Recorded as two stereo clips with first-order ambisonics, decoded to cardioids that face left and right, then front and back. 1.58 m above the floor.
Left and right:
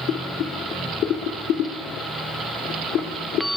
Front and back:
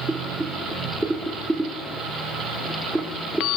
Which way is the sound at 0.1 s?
100° left.